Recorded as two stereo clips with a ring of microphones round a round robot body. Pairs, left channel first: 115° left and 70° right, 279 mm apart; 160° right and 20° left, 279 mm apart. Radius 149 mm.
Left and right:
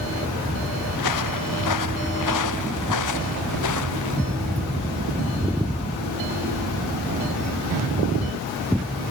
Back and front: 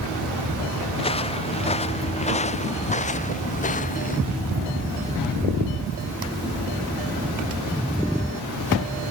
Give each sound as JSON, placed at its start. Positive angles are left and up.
{"t": 0.9, "sound": "footsteps", "azimuth_deg": 130}